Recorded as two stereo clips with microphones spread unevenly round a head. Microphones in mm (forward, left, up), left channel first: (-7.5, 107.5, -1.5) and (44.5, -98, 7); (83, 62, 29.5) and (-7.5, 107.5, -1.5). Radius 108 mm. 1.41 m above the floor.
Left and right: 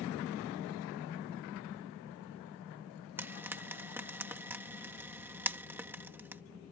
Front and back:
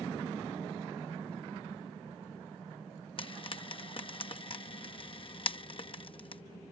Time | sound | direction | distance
3.2 | frying | 5° left | ?